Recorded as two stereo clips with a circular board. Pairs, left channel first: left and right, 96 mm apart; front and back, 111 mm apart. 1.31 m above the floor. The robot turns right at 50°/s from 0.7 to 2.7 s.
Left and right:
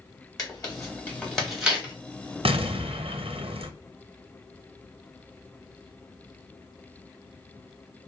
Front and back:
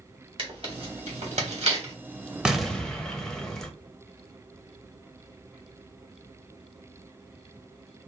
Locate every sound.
0.4 s tearing paper: 140° left, 1.5 m; by 1.9 s 155° right, 1.5 m
2.5 s an explosion: 95° right, 0.6 m; by 3.7 s 85° right, 0.6 m